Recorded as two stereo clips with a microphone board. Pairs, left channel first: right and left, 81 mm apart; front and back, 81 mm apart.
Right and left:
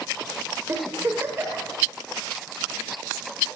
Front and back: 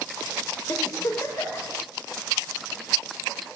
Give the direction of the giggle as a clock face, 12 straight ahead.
11 o'clock.